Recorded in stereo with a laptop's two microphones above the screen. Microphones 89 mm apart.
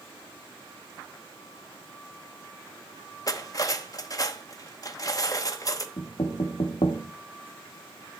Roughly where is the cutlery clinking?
Left.